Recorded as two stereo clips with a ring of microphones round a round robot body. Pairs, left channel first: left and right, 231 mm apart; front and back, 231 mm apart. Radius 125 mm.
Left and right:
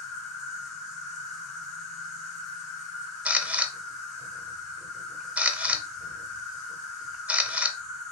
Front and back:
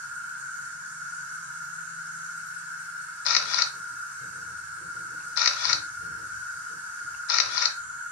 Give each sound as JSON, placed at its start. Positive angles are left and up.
{"t": 0.0, "sound": "an insect", "azimuth_deg": 165, "distance_m": 1.7}
{"t": 3.2, "sound": "a camera shutter", "azimuth_deg": -5, "distance_m": 0.7}